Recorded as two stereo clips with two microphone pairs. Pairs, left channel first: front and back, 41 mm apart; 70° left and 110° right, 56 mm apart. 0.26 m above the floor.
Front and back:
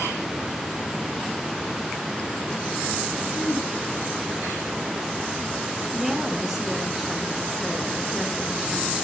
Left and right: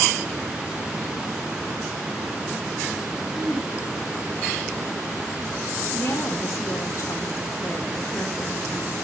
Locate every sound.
3.3 s throat clearing: 5° right, 7 m
5.9 s a woman speaking: 95° left, 2.5 m